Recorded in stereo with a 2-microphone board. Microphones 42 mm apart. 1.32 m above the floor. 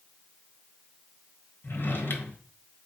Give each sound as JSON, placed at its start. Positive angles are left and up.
{"t": 1.6, "sound": "a drawer", "side_deg": 55, "distance_m": 1.1}